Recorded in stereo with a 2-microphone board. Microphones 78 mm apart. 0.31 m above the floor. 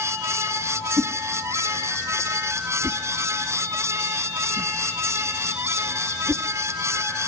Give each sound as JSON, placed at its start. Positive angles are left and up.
{"t": 1.0, "sound": "a whoosh", "side_deg": -35, "distance_m": 0.9}